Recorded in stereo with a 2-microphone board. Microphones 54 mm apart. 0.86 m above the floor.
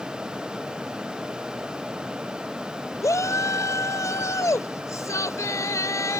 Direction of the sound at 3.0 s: 75° left (ahead or behind).